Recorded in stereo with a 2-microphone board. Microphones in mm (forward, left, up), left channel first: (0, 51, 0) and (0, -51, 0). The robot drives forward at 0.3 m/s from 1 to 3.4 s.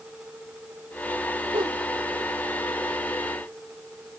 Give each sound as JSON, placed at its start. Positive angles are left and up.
{"t": 1.5, "sound": "a whoosh", "side_deg": -60}